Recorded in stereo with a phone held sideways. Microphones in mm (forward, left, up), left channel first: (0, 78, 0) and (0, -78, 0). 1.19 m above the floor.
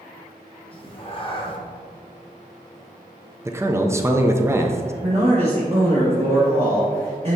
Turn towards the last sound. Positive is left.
turn(degrees=-40)  # may be behind; listen again after turning